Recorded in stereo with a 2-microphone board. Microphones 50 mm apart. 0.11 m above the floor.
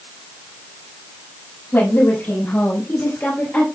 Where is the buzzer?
I don't hear a buzzer.